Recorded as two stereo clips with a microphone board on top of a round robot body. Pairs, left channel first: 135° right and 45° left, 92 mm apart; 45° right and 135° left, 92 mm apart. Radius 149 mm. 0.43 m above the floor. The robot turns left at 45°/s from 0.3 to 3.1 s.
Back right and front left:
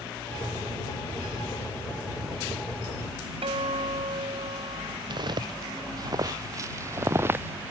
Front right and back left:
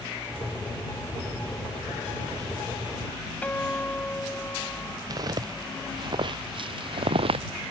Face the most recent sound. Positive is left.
turn(degrees=115)